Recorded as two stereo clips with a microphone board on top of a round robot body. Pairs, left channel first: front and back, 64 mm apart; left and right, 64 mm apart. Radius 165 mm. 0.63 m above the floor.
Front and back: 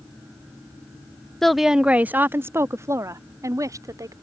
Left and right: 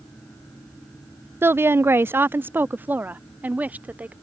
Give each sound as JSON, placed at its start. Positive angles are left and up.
{"t": 1.4, "sound": "a woman speaking", "azimuth_deg": -80}